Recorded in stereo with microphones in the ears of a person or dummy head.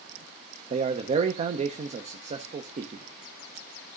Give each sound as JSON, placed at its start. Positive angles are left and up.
{"t": 0.7, "sound": "a man speaking", "side_deg": -30, "distance_m": 0.5}